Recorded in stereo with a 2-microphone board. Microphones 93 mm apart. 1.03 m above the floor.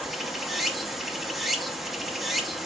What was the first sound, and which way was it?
Running water, centre (ahead or behind).